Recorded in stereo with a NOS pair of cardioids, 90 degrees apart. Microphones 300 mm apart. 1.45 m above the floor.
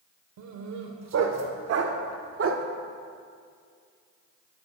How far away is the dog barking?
About 2.5 m.